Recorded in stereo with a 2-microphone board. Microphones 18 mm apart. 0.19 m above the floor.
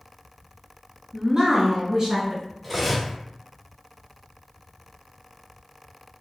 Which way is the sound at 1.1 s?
30° right (ahead or behind).